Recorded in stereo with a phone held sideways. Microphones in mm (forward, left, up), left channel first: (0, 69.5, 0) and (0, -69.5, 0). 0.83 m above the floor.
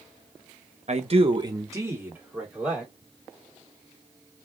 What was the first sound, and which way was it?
A man speaking, 55° right (ahead or behind).